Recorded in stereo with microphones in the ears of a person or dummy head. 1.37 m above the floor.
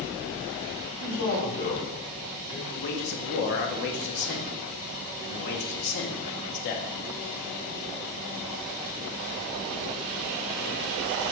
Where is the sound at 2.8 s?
55° left (ahead or behind), 0.8 m.